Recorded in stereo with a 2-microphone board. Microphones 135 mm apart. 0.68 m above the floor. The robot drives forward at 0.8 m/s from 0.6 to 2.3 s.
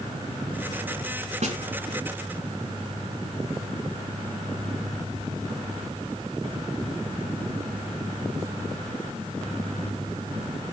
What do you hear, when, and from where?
1.4 s a snare drum: 60° right (ahead or behind), 1.2 m; by 1.6 s 55° right (ahead or behind), 1.3 m